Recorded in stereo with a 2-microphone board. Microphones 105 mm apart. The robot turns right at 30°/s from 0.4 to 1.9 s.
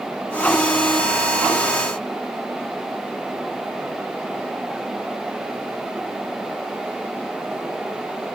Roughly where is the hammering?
No hammering in this recording.